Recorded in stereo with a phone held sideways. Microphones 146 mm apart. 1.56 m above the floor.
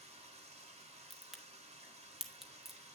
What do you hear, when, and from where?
0.0 s running water: 45° right (ahead or behind), 1.5 m
1.1 s a crack: centre (ahead or behind), 1.0 m